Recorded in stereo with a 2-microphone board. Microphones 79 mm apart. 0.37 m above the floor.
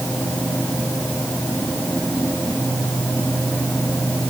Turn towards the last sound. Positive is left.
No sound to turn to.